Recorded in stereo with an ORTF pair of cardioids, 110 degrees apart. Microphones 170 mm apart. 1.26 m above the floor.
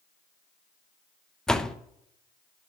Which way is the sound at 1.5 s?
5° left.